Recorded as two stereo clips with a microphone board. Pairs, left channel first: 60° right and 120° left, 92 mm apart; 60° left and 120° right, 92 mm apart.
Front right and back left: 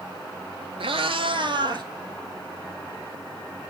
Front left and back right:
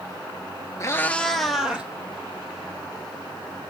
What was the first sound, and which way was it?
A cat meowing, 115° left.